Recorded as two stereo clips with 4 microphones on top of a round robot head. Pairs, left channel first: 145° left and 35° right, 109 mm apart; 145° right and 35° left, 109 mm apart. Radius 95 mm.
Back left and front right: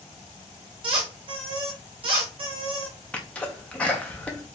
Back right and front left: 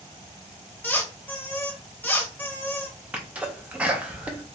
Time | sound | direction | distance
0.8 | a squeak | 70° right | 1.3 m
3.1 | a sneeze | 90° left | 0.7 m